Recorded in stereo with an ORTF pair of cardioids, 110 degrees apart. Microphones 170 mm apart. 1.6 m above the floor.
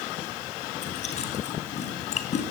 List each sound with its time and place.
0.8 s chewing: 40° left, 6.5 m